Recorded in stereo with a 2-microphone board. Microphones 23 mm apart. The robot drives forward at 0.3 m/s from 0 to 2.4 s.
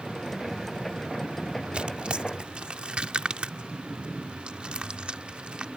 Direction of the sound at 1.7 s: 50° right (ahead or behind).